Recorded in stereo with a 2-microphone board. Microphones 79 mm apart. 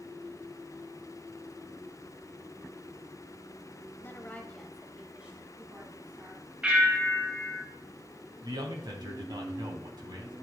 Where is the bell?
15° right (ahead or behind), 3.5 m.